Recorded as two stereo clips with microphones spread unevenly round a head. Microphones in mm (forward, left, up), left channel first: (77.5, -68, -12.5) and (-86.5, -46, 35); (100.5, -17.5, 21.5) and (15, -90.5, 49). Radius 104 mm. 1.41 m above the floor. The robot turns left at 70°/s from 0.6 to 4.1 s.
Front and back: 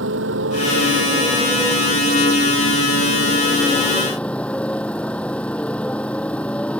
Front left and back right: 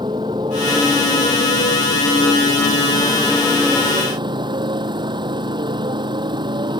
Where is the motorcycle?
155° left; by 6.8 s 90° right.